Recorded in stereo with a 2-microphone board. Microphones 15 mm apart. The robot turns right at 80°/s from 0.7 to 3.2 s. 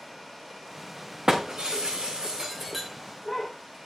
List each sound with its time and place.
1.3 s breaking glass: 50° right (ahead or behind), 2.5 m; by 3.5 s 25° left (ahead or behind), 2.5 m